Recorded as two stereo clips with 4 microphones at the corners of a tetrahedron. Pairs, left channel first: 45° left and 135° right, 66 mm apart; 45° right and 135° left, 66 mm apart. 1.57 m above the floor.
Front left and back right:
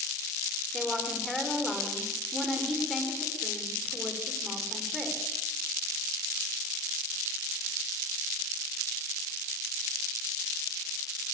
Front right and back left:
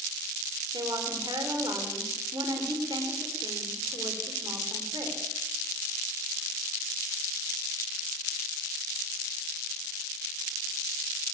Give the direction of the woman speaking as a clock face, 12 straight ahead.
8 o'clock.